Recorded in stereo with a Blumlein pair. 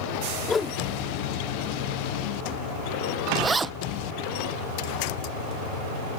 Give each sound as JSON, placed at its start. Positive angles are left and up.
{"t": 0.5, "sound": "a whoosh", "azimuth_deg": 15}
{"t": 3.4, "sound": "a zipper", "azimuth_deg": -10}